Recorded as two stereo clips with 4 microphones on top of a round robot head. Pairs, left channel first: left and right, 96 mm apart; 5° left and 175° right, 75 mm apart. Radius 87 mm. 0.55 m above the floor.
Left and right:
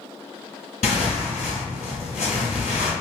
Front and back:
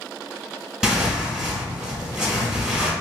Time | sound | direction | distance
0.8 | tearing paper | 105° left | 2.0 m